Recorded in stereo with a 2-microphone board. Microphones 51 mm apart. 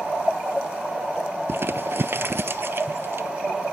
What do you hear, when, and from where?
1.5 s crumpling: 50° right (ahead or behind), 0.5 m